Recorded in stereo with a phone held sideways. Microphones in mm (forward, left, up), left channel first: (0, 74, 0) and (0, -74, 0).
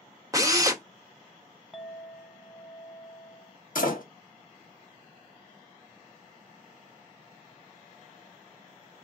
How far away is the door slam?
About 1.4 m.